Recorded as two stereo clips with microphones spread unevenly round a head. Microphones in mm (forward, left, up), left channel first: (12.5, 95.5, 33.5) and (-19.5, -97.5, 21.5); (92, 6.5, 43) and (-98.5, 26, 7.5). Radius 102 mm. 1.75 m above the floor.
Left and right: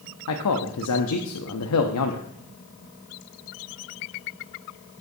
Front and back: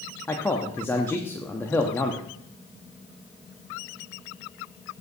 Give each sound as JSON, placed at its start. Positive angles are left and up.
{"t": 0.3, "sound": "a man speaking", "azimuth_deg": 75, "distance_m": 0.6}